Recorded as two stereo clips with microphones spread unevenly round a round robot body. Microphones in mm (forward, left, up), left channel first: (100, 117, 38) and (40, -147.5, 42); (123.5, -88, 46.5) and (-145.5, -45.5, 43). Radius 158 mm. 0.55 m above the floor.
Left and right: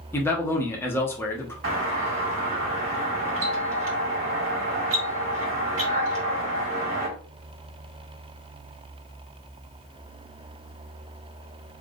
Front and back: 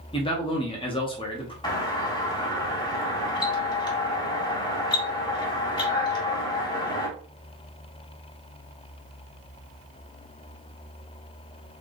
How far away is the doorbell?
About 1.9 m.